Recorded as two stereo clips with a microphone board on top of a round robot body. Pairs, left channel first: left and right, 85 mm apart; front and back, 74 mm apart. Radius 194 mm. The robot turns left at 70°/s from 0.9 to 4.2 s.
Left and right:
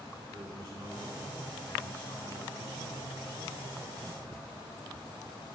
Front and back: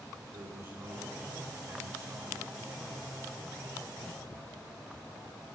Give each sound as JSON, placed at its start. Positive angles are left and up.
{"t": 0.3, "sound": "a man speaking", "azimuth_deg": -130, "distance_m": 9.5}